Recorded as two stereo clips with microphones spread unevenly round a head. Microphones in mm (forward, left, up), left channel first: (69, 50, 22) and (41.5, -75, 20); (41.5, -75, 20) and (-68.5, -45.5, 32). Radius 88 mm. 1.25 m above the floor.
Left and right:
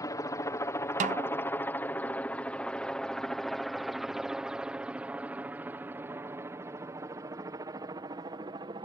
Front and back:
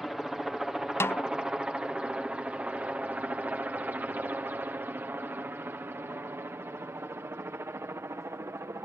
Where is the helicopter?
70° left; by 8.8 s 140° right.